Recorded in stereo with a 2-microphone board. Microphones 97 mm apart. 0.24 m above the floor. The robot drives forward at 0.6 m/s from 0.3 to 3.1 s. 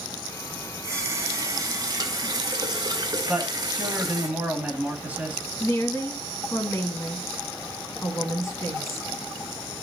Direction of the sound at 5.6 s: 30° left (ahead or behind).